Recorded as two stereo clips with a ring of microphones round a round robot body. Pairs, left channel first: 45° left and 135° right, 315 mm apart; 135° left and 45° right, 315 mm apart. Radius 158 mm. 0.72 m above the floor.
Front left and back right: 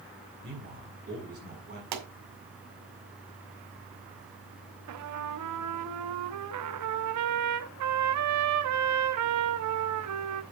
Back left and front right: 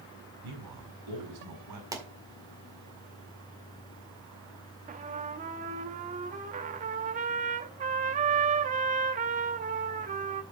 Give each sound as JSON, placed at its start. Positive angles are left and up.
{"t": 0.4, "sound": "a man speaking", "azimuth_deg": -70, "distance_m": 5.5}
{"t": 1.9, "sound": "a pop", "azimuth_deg": -125, "distance_m": 2.0}
{"t": 4.9, "sound": "a trumpet", "azimuth_deg": -110, "distance_m": 0.8}